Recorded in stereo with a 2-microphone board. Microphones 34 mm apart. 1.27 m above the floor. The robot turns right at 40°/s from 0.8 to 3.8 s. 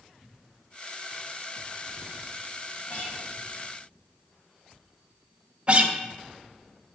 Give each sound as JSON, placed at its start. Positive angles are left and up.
{"t": 2.9, "sound": "a guitar", "side_deg": 65, "distance_m": 1.4}
{"t": 5.7, "sound": "a guitar", "side_deg": -35, "distance_m": 0.6}